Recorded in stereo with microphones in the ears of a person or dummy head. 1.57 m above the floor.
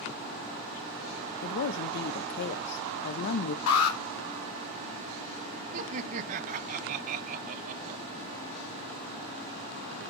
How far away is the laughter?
About 1.0 m.